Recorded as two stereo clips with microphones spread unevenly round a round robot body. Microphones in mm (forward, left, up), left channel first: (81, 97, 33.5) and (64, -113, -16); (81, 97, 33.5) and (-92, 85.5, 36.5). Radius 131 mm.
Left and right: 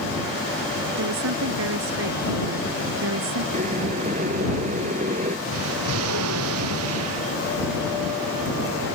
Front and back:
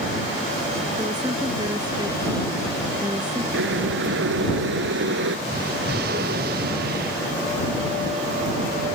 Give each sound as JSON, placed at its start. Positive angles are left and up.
{"t": 1.0, "sound": "a woman speaking", "azimuth_deg": -105}
{"t": 3.5, "sound": "boiling", "azimuth_deg": -160}
{"t": 5.5, "sound": "an explosion", "azimuth_deg": -125}